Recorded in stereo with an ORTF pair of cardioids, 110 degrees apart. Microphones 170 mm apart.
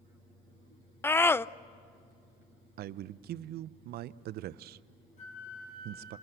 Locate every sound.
1.0 s a scream: 15° left, 0.6 m
2.8 s a man speaking: 70° right, 0.7 m
5.2 s a flute: 45° left, 4.5 m